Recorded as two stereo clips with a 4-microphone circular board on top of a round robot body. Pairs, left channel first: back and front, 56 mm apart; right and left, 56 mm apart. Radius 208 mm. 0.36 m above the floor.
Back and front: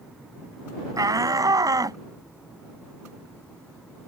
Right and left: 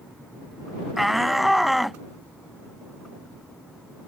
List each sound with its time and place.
1.0 s a shout: 5° left